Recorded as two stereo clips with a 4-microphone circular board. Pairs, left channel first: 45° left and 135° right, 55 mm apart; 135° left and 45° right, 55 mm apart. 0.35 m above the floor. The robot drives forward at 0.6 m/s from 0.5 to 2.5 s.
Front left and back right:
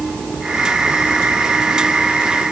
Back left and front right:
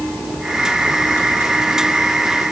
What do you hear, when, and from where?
Only background noise.